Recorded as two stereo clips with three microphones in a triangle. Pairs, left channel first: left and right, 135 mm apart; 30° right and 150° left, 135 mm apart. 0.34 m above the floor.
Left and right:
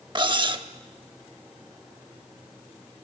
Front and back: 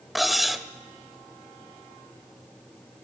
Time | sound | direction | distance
0.1 | cutlery clinking | 120° right | 0.6 m